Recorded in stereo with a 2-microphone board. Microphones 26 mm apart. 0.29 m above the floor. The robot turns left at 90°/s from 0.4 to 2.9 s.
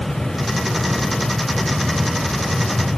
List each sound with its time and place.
Only background noise.